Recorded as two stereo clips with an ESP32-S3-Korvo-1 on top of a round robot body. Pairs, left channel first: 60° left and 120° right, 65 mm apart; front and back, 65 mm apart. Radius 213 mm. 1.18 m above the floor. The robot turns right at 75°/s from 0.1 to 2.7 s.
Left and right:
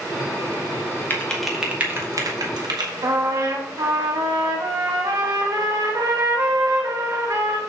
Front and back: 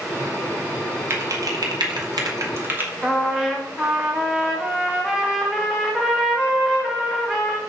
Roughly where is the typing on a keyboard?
Behind left.